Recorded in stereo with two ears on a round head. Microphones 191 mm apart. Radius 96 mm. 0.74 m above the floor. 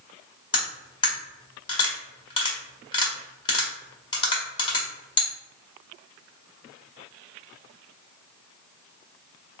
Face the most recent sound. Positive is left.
turn(degrees=20)  # may be behind; listen again after turning